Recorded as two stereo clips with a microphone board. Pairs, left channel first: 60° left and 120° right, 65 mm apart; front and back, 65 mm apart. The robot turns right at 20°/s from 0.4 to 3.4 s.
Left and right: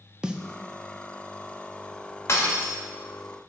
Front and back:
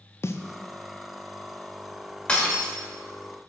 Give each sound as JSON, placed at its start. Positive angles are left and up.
{"t": 0.2, "sound": "a snare drum", "azimuth_deg": -45, "distance_m": 0.5}
{"t": 2.3, "sound": "breaking glass", "azimuth_deg": 60, "distance_m": 1.7}